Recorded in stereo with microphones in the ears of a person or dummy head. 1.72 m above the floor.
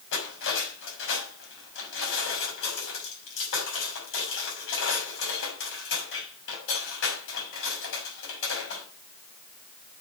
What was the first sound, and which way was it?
Cutlery clinking, 80° left.